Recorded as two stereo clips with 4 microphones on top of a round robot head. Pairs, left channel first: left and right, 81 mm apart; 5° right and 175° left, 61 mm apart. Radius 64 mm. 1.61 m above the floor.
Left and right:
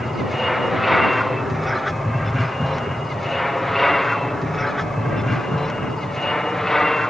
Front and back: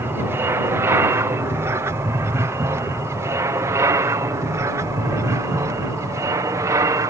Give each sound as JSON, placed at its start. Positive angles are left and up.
{"t": 0.0, "sound": "an aircraft", "azimuth_deg": 180}